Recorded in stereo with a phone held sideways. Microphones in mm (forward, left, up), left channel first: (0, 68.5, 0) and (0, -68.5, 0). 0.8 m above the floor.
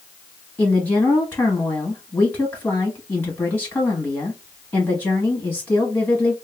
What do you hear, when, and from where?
0.6 s a woman speaking: 10° left (ahead or behind), 1.1 m